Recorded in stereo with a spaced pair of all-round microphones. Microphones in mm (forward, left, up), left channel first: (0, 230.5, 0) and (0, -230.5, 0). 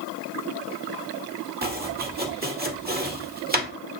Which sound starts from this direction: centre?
Chopping, at 1.6 s.